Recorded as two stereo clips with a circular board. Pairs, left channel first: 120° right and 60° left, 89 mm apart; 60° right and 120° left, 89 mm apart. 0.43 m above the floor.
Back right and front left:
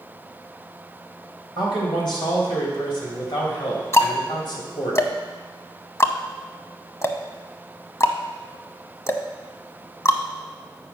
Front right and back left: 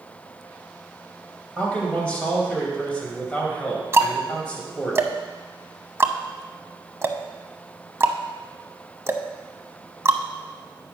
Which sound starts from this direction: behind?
Ticking, at 3.9 s.